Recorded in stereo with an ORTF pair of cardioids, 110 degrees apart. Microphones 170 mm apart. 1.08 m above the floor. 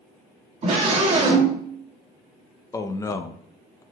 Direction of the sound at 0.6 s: 40° right.